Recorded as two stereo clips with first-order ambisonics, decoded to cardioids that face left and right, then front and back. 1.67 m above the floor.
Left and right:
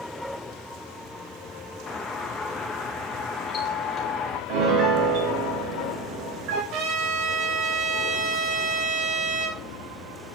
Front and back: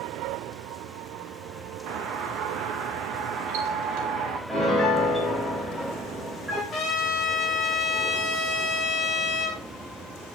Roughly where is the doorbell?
Behind.